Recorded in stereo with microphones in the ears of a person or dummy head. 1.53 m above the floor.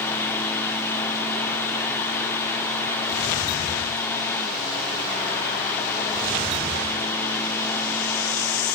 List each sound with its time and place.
0.0 s a fan: 10° left (ahead or behind), 2 m